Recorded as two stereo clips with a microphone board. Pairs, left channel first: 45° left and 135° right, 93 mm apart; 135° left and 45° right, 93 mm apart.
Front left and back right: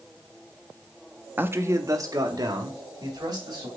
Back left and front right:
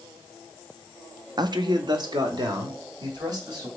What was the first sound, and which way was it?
A man speaking, 70° right.